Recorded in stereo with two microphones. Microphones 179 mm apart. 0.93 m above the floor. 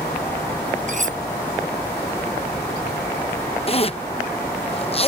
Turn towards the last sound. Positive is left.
turn(degrees=35)  # may be behind; listen again after turning